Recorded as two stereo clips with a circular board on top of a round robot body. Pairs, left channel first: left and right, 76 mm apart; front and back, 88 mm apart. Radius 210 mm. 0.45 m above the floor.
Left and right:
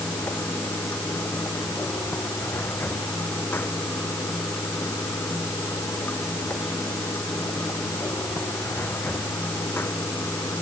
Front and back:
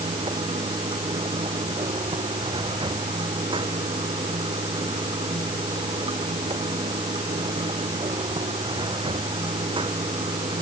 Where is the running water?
155° left.